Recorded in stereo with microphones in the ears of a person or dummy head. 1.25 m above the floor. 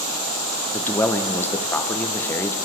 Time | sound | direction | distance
0.7 | a man speaking | 10° left (ahead or behind) | 0.5 m